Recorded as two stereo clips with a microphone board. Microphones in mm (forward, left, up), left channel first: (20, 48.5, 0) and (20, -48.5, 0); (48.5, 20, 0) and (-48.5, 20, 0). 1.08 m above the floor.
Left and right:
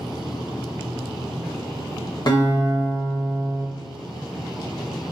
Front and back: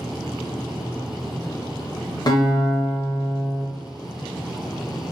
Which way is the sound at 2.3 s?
45° left.